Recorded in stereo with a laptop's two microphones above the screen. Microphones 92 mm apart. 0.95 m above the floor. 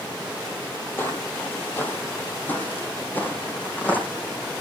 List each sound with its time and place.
1.0 s footsteps: 25° left (ahead or behind), 1.6 m; by 4.1 s 20° left (ahead or behind), 3 m